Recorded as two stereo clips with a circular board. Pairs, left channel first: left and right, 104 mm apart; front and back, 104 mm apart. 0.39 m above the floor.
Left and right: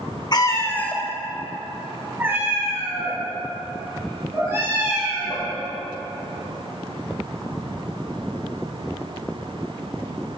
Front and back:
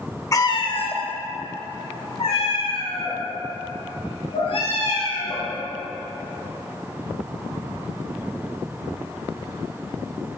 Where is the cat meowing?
50° left, 0.5 m; by 5.5 s 30° right, 3.5 m.